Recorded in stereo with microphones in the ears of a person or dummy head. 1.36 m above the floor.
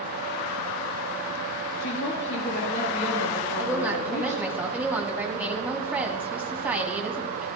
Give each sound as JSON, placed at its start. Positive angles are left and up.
{"t": 1.8, "sound": "a woman speaking", "side_deg": 65, "distance_m": 2.0}
{"t": 3.6, "sound": "a woman speaking", "side_deg": -10, "distance_m": 1.3}